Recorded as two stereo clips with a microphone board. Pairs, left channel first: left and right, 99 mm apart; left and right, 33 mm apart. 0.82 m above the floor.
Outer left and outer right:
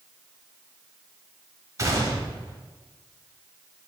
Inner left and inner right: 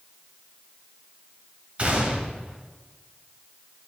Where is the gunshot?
35° right (ahead or behind), 1.1 m.